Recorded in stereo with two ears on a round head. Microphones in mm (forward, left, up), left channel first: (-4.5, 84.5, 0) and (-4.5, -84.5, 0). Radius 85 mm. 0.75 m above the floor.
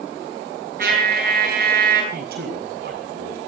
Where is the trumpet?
50° right (ahead or behind), 9 m.